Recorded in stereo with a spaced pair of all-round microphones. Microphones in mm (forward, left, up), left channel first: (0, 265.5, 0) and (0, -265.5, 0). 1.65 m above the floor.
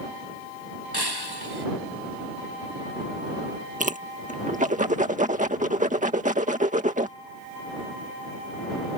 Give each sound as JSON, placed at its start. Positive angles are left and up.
{"t": 0.9, "sound": "breaking glass", "side_deg": -45}
{"t": 3.8, "sound": "a whoosh", "side_deg": -15}